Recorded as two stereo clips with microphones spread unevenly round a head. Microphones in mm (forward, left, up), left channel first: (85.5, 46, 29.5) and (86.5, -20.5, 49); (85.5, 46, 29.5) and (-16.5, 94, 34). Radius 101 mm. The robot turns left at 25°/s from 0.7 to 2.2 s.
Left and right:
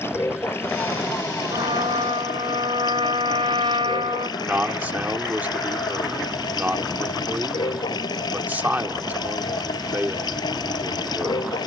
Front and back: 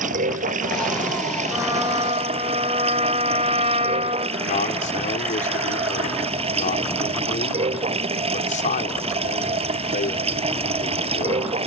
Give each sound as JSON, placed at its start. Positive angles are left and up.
{"t": 0.0, "sound": "running water", "azimuth_deg": 160}
{"t": 1.5, "sound": "a trumpet", "azimuth_deg": -125}
{"t": 4.4, "sound": "a man speaking", "azimuth_deg": -30}